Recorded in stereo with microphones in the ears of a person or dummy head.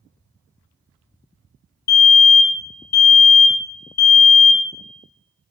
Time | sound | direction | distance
1.9 | a fire alarm | 50° left (ahead or behind) | 0.8 m